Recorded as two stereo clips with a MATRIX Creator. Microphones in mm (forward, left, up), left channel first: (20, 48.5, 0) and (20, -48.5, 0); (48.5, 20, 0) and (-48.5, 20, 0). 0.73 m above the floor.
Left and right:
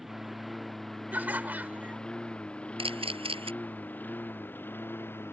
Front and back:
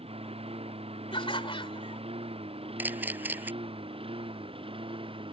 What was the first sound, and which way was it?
A lawn mower, 175° right.